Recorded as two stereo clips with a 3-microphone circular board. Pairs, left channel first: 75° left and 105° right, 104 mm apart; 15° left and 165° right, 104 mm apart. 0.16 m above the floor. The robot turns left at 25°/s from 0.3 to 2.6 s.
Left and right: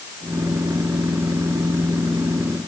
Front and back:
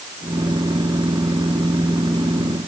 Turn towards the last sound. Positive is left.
No sound to turn to.